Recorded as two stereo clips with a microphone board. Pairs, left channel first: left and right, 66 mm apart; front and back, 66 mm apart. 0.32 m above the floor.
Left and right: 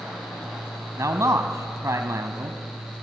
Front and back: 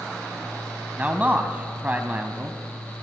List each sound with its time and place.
1.0 s a man speaking: 115° right, 2 m